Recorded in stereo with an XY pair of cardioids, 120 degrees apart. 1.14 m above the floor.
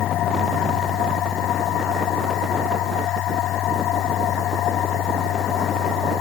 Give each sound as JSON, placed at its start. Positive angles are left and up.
{"t": 0.0, "sound": "a machine running", "azimuth_deg": 65}